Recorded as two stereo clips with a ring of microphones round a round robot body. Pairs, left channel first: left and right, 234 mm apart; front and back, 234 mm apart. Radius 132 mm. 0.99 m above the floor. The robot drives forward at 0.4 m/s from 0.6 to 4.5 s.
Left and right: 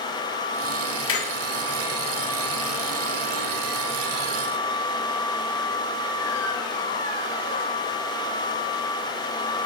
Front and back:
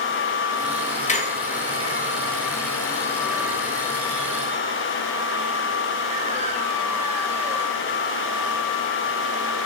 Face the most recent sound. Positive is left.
turn(degrees=115)